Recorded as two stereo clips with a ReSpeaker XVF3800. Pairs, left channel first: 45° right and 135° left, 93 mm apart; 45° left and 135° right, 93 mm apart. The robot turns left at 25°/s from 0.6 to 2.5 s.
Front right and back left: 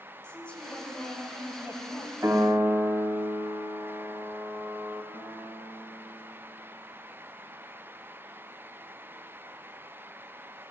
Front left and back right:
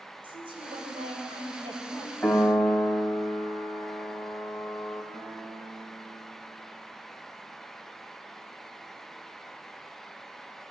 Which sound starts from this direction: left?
A piano, at 2.2 s.